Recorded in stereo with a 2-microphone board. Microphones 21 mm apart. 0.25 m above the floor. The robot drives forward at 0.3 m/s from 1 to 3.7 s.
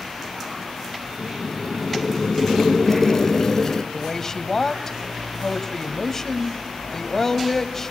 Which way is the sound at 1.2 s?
30° left (ahead or behind).